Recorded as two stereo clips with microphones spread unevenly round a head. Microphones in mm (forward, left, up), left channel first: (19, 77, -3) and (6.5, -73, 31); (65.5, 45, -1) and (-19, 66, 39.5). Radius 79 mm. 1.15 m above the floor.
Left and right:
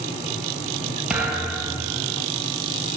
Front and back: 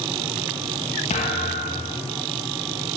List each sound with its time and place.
1.1 s a thud: 15° right, 3 m